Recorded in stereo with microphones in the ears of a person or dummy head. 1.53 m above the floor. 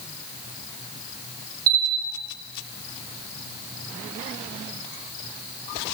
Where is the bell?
50° right (ahead or behind), 0.9 m.